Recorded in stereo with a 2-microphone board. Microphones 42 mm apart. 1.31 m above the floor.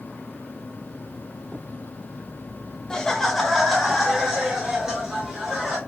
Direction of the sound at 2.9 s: 15° left (ahead or behind).